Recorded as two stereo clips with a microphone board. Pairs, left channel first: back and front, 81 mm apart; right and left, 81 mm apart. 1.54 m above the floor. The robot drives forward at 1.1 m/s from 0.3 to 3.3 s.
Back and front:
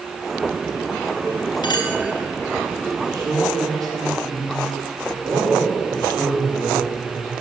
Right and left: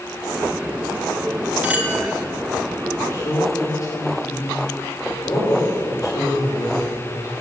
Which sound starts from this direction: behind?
A clink, at 1.6 s.